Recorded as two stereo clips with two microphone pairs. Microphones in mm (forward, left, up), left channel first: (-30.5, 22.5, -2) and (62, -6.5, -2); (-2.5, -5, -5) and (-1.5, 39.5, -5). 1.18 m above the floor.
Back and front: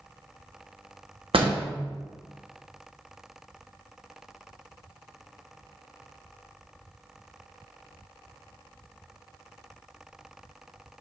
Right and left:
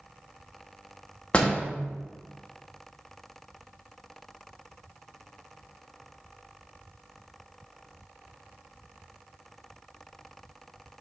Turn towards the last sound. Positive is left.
turn(degrees=-30)